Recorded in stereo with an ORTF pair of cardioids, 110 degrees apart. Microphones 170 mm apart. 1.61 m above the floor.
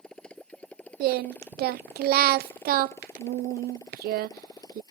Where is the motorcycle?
5° left; by 4.9 s 25° left.